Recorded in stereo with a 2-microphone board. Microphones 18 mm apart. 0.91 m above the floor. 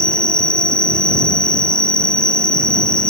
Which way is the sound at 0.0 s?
60° left (ahead or behind).